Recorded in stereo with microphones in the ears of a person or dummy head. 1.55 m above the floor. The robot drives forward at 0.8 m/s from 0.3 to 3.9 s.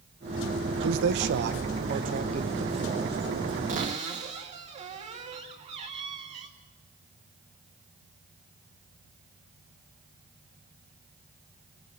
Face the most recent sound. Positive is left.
turn(degrees=-35)  # may be behind; listen again after turning